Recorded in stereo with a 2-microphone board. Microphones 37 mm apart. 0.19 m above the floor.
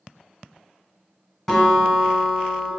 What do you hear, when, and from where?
1.5 s a guitar: 10° left (ahead or behind), 1.2 m